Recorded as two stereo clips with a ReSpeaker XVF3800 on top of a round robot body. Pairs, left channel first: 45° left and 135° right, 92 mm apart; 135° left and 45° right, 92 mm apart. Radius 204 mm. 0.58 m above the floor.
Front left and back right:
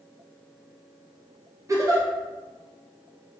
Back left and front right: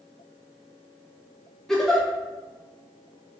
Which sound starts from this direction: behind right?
A giggle, at 1.7 s.